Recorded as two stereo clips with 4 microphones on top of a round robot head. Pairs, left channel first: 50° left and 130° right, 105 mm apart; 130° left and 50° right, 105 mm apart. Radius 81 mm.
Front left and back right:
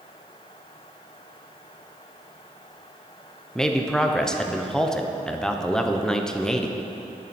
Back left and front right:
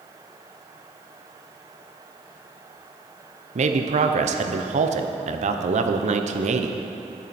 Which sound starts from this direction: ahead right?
A man speaking, at 3.5 s.